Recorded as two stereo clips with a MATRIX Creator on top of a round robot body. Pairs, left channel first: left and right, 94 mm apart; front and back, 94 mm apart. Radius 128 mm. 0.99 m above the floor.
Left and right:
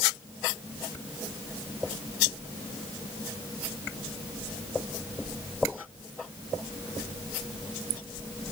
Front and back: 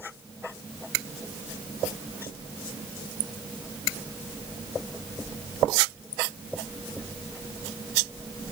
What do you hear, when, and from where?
Only background noise.